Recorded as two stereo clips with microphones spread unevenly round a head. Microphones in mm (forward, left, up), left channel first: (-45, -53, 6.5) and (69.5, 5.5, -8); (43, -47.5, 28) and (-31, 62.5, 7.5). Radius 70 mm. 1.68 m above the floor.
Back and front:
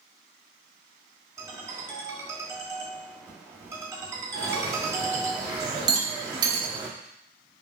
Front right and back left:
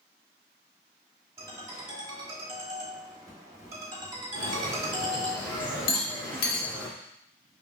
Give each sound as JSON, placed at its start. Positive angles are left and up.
{"t": 1.4, "sound": "a ringtone", "azimuth_deg": 80, "distance_m": 1.2}
{"t": 4.3, "sound": "a bird", "azimuth_deg": -20, "distance_m": 1.3}
{"t": 5.9, "sound": "a rattle", "azimuth_deg": -35, "distance_m": 0.9}